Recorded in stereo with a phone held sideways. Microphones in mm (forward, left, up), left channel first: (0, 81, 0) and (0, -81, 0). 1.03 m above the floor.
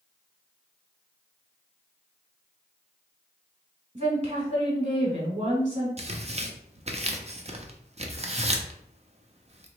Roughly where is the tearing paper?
Right.